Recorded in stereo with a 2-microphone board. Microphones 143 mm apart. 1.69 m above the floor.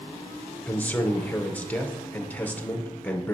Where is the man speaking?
10° left (ahead or behind), 0.9 m.